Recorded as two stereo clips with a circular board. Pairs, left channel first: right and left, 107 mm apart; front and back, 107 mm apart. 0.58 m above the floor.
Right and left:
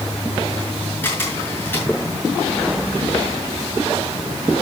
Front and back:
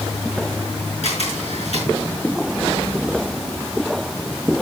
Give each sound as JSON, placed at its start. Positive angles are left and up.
{"t": 1.0, "sound": "a camera shutter", "azimuth_deg": -20, "distance_m": 5.5}